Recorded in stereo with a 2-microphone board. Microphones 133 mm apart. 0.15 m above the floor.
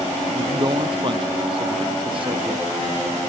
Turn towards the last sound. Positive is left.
turn(degrees=-40)  # may be behind; listen again after turning